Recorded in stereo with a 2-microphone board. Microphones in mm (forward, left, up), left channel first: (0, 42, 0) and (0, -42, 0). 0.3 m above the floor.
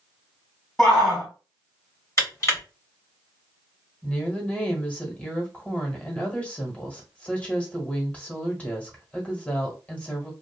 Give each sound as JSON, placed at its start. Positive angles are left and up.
{"t": 0.8, "sound": "a shout", "side_deg": 10, "distance_m": 1.8}
{"t": 2.2, "sound": "crushing", "side_deg": 35, "distance_m": 1.6}
{"t": 4.0, "sound": "a woman speaking", "side_deg": 15, "distance_m": 1.2}